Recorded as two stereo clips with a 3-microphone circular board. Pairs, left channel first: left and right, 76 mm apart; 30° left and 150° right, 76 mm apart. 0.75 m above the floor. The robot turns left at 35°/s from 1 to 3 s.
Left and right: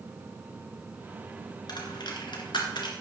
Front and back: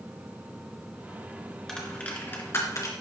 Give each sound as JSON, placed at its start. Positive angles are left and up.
{"t": 1.7, "sound": "a dropped coin", "azimuth_deg": 115, "distance_m": 2.0}